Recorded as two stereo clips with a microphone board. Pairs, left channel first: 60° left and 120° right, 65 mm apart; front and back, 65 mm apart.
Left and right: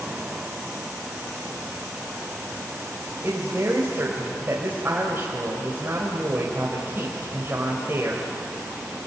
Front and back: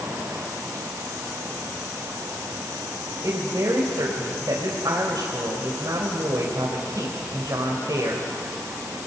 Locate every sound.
3.2 s a woman speaking: 170° right, 3 m